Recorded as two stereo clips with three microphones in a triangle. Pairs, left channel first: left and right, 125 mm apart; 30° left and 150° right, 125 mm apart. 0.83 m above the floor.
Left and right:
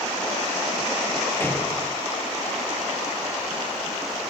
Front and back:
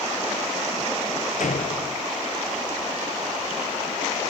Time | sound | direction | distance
1.4 | a door slam | 15° left | ?